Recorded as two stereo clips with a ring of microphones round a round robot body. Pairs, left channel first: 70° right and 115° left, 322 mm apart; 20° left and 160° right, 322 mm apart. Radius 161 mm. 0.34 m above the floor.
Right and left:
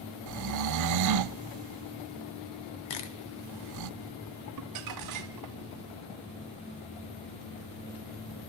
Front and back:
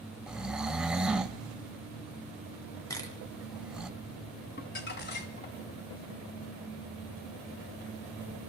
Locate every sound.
0.3 s snoring: 115° left, 0.5 m
2.9 s a camera shutter: 60° right, 1.8 m
4.6 s crumpling: 80° left, 1.3 m